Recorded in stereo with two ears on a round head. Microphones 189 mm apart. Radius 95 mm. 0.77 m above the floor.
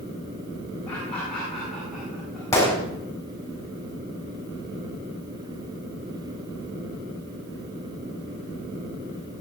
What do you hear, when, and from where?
0.9 s laughter: 10° left (ahead or behind), 8.5 m; by 2.4 s 5° right (ahead or behind), 9 m
2.5 s a gunshot: 15° left (ahead or behind), 7 m